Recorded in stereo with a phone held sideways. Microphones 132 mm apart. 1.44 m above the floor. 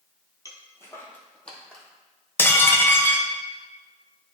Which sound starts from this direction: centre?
Dishes clattering, at 2.4 s.